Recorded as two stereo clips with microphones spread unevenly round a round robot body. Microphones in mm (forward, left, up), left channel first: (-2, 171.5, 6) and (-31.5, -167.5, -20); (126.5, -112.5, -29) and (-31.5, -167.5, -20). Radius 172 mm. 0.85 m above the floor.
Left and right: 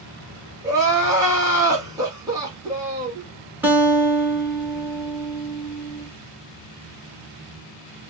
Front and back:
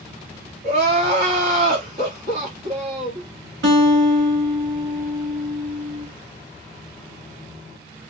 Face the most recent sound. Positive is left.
turn(degrees=180)